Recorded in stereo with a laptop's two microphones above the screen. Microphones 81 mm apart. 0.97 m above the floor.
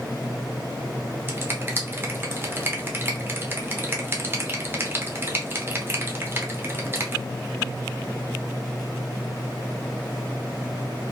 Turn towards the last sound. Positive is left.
turn(degrees=-30)  # may be behind; listen again after turning